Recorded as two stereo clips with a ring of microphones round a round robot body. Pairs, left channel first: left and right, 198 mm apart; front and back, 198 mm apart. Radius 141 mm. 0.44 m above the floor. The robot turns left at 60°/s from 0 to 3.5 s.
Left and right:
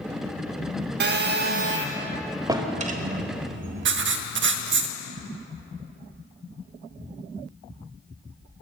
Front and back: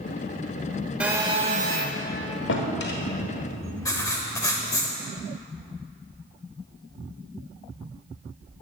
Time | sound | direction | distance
1.0 | a phone buzzing | 95° right | 0.7 m
2.5 | a drawer | 20° right | 1.3 m
3.9 | writing | 75° right | 0.7 m